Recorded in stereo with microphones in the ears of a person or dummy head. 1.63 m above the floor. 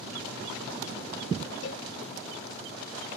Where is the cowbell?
75° left (ahead or behind).